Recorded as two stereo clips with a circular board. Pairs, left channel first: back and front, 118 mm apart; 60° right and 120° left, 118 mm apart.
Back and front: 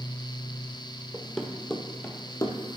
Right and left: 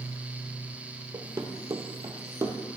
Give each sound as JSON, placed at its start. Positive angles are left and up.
{"t": 1.1, "sound": "running footsteps", "azimuth_deg": 80, "distance_m": 1.2}